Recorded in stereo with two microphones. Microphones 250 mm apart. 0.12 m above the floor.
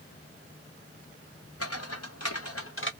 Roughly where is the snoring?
No snoring in this recording.